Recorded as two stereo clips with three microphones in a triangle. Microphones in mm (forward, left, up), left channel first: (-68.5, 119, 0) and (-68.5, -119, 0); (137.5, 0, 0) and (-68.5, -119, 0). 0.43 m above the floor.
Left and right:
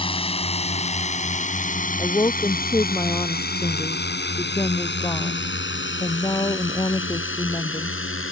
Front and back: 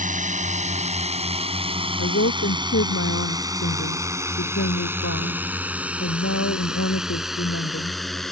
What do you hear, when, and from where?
0.0 s a drone: 155° left; by 8.3 s 120° left
2.0 s a woman speaking: 15° left